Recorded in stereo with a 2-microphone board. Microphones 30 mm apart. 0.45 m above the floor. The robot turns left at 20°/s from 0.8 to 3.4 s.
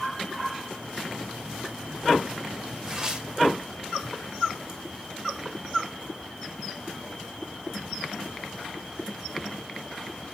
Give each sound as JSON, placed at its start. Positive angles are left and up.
{"t": 2.9, "sound": "tearing paper", "side_deg": -15, "distance_m": 2.0}